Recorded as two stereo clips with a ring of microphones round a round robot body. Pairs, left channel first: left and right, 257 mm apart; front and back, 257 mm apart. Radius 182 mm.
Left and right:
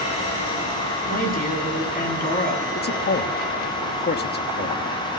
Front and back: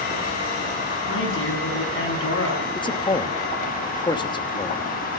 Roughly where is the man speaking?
Ahead left.